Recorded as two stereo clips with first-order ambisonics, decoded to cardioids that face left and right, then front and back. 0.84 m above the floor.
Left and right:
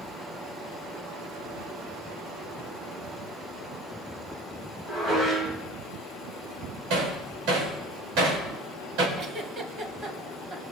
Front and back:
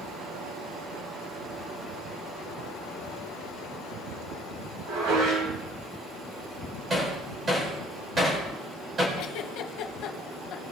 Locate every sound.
4.9 s dishes clattering: 155° right, 3.5 m
6.9 s hammering: 110° right, 3.5 m
9.2 s a giggle: 30° right, 1.3 m